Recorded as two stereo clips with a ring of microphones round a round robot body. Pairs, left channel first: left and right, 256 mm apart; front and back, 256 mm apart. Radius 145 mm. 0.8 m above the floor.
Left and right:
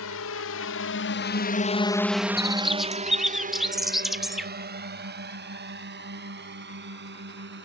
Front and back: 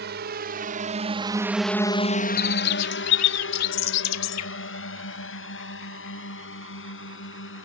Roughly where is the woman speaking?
I don't hear a woman speaking.